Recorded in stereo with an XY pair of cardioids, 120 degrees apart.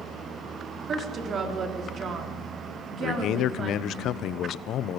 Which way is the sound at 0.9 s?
45° right.